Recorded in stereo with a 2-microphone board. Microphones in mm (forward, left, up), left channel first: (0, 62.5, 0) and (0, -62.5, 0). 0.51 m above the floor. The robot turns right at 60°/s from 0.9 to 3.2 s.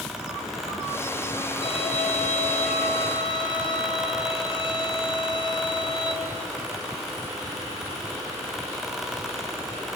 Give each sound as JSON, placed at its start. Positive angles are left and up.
{"t": 1.6, "sound": "a violin", "azimuth_deg": 45, "distance_m": 6.0}